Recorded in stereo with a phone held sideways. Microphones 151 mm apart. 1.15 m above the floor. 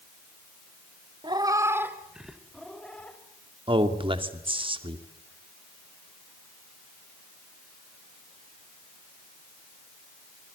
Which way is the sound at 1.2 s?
30° right (ahead or behind).